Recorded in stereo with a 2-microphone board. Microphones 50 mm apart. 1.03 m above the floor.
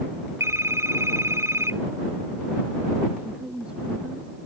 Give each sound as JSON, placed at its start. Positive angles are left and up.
{"t": 0.4, "sound": "a phone ringing", "side_deg": -80}
{"t": 3.2, "sound": "a woman speaking", "side_deg": -20}